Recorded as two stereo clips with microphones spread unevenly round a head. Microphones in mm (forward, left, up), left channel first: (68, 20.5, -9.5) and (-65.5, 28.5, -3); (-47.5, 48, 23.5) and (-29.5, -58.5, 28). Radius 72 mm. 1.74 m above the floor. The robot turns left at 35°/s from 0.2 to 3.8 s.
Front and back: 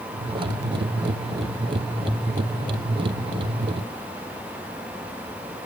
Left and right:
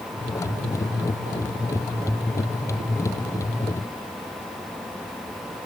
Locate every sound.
Only background noise.